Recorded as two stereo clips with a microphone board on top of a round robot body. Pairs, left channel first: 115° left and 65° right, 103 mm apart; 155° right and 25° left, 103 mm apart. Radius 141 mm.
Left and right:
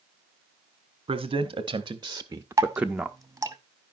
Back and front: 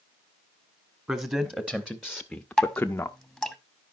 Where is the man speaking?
45° right, 1.4 m; by 3.2 s 165° right, 0.9 m.